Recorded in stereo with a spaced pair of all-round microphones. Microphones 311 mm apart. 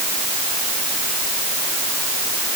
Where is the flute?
No flute in this recording.